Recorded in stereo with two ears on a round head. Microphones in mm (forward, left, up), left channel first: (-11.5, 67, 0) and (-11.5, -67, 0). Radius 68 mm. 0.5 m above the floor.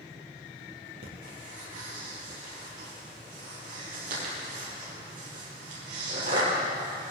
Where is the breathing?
55° right (ahead or behind), 6 m.